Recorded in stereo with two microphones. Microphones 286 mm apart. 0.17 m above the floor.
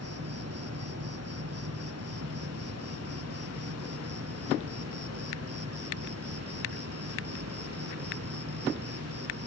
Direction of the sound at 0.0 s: 55° right (ahead or behind).